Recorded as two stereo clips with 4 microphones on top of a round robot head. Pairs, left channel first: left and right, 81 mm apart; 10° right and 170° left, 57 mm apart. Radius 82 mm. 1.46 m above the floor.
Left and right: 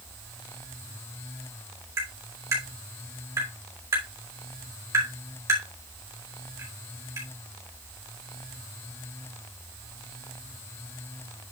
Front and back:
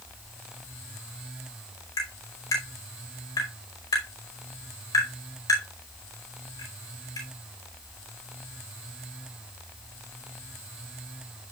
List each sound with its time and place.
2.0 s tapping: 35° right, 5 m